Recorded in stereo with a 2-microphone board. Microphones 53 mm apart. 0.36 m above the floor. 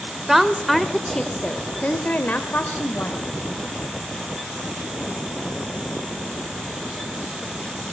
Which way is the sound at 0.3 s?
5° right (ahead or behind).